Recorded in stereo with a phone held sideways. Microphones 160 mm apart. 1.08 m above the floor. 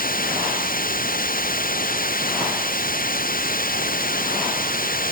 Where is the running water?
65° left (ahead or behind).